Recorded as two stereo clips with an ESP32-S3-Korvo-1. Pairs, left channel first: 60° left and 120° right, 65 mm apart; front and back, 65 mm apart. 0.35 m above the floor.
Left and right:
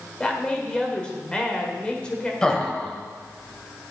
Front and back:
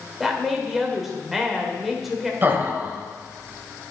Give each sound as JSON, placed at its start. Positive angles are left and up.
{"t": 0.2, "sound": "a woman speaking", "azimuth_deg": 100, "distance_m": 1.4}
{"t": 2.4, "sound": "laughter", "azimuth_deg": 135, "distance_m": 1.4}